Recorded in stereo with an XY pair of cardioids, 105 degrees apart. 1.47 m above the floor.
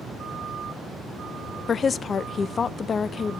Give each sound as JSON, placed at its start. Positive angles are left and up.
{"t": 1.7, "sound": "a woman speaking", "azimuth_deg": 45, "distance_m": 0.5}